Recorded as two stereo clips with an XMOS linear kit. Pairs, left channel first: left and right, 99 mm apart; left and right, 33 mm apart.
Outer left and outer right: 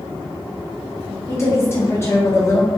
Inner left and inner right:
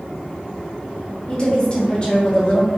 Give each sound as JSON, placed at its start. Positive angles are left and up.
{"t": 1.3, "sound": "a woman speaking", "side_deg": 25, "distance_m": 0.8}